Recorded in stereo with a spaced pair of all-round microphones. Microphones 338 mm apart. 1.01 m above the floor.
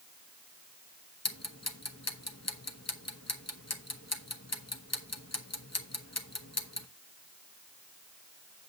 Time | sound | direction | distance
1.2 | ticking | 45° left (ahead or behind) | 1.0 m